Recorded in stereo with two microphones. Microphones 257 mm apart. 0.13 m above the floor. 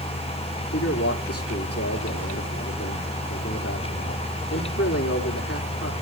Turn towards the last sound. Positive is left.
turn(degrees=65)  # may be behind; listen again after turning